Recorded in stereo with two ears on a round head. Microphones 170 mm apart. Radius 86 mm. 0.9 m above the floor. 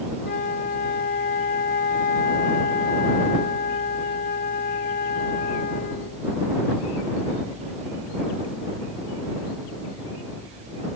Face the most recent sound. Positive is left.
turn(degrees=45)  # may be behind; listen again after turning